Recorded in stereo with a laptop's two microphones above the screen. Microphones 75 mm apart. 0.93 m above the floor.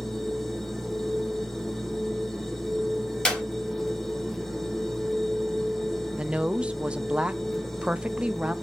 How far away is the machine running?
About 1.4 m.